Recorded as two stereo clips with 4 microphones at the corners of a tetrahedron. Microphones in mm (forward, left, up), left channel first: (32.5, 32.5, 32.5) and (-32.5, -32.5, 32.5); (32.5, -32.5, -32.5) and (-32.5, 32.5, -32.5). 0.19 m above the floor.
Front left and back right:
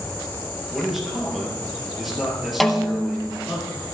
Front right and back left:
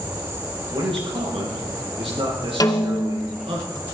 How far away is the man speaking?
About 4 m.